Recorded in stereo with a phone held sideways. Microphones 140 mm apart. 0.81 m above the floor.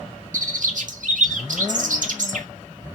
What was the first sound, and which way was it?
A bird, 65° right (ahead or behind).